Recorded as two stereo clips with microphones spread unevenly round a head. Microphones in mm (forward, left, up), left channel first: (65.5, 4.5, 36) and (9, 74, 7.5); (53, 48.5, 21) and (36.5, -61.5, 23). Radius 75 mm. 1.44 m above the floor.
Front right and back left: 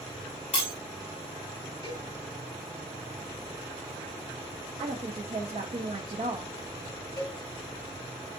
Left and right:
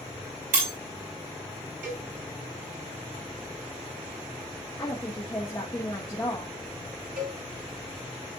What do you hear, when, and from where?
0.5 s breaking glass: 100° right, 4.5 m
1.8 s a cowbell: 115° right, 5 m
4.8 s a woman speaking: 155° left, 0.9 m
7.2 s a cowbell: 115° right, 3 m